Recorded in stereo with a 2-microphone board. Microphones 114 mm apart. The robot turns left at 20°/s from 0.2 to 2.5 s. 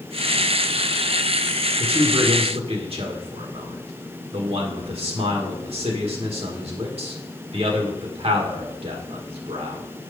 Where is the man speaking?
50° right (ahead or behind), 1.6 m; by 9.8 s 60° right (ahead or behind), 1.6 m.